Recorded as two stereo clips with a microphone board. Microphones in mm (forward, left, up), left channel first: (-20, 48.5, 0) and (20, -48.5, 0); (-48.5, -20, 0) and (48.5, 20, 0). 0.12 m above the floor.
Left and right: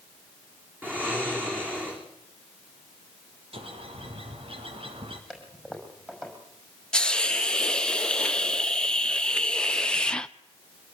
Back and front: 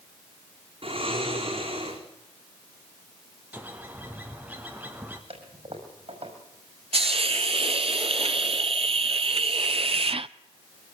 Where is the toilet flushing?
15° left, 5.5 m.